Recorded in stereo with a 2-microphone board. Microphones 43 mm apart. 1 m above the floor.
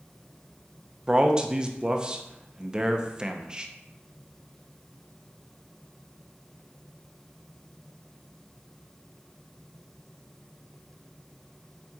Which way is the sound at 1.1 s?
20° right (ahead or behind).